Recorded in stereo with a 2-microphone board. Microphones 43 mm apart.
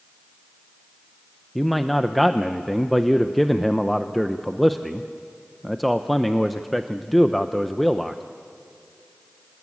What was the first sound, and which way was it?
A man speaking, 5° left (ahead or behind).